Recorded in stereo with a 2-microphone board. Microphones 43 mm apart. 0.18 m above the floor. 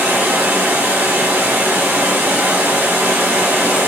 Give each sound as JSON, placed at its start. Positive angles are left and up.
{"t": 0.0, "sound": "running water", "side_deg": -60, "distance_m": 1.1}